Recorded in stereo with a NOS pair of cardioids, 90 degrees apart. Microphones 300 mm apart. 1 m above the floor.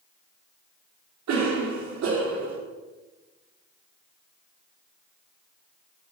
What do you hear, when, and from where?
1.3 s a cough: 65° right, 3 m